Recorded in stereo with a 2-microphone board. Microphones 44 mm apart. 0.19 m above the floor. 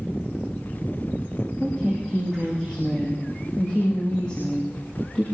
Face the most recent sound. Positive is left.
turn(degrees=20)  # may be behind; listen again after turning